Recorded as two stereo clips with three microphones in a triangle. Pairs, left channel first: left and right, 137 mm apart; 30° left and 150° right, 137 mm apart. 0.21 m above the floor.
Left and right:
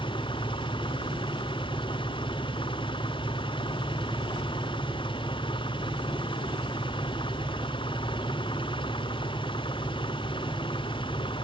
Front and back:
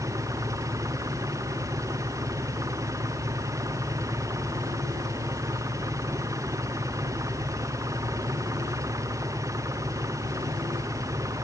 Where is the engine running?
145° left.